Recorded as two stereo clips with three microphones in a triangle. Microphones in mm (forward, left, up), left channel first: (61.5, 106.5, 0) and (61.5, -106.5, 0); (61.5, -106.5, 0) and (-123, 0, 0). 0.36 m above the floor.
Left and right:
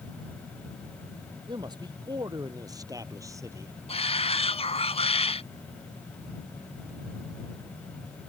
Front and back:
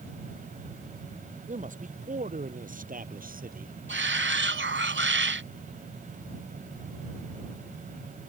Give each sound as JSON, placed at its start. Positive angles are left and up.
{"t": 1.5, "sound": "a man speaking", "azimuth_deg": -160}
{"t": 3.9, "sound": "a shout", "azimuth_deg": 150}